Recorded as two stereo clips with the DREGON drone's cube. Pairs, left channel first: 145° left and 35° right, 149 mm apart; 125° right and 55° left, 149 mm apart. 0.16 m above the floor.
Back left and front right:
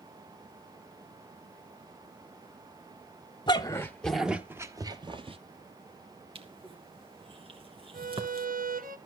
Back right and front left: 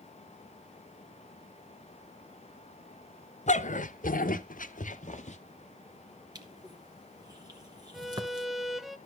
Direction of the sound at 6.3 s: 5° left.